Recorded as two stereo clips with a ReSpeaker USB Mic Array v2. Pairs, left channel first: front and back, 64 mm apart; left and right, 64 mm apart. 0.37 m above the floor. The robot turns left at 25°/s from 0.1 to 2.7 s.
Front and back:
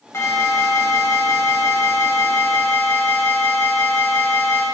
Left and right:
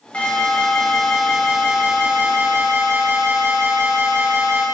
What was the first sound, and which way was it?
An alarm, 25° left.